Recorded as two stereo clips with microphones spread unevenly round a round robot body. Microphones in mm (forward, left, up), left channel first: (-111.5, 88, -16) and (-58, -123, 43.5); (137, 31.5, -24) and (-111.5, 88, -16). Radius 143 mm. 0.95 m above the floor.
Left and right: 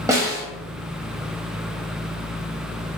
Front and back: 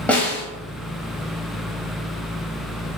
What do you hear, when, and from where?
0.1 s a snare drum: 95° right, 0.8 m